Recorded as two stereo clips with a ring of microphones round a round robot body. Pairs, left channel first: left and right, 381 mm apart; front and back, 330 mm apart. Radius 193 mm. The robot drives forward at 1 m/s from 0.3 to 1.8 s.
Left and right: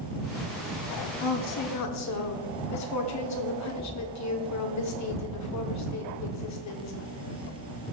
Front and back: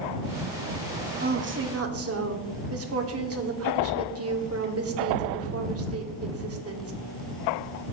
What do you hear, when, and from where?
1.2 s a woman speaking: 115° left, 1.4 m; by 6.9 s 135° left, 1.8 m